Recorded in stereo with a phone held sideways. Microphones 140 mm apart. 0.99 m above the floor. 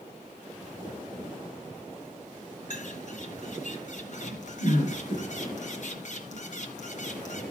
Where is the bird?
60° left (ahead or behind), 3 m.